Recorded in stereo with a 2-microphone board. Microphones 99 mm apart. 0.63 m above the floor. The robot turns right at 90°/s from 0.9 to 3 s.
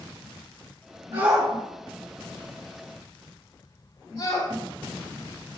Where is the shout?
50° right (ahead or behind), 2 m; by 4.5 s 55° left (ahead or behind), 2 m.